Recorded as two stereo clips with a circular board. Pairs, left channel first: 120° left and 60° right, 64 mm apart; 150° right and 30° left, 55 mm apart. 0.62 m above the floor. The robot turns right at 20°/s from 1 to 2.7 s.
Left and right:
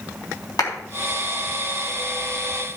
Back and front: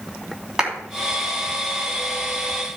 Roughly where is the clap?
Left.